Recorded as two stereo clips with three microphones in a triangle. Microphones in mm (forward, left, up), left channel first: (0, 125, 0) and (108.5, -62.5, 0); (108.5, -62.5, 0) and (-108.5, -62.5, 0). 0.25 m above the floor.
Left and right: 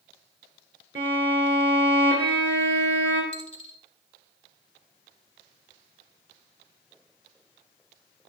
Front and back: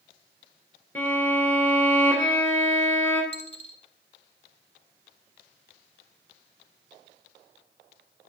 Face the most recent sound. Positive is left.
turn(degrees=55)